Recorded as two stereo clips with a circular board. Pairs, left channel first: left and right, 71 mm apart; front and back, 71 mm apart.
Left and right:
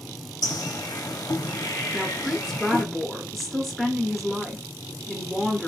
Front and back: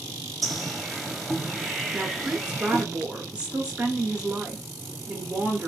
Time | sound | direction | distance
0.4 | a bird | 90° left | 0.7 m
1.9 | a woman speaking | straight behind | 0.7 m